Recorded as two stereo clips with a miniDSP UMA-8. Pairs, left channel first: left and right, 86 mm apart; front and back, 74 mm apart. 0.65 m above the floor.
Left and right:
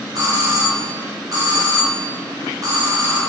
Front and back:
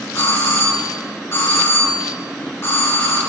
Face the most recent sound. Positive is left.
turn(degrees=-50)